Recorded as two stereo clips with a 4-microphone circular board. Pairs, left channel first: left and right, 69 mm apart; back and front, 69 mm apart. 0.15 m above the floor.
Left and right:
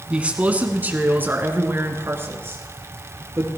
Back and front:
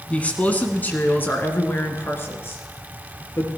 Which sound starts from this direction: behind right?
A man speaking, at 0.1 s.